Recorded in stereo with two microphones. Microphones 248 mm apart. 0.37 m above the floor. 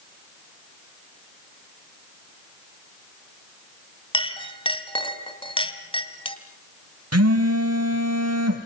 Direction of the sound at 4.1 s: 20° left (ahead or behind).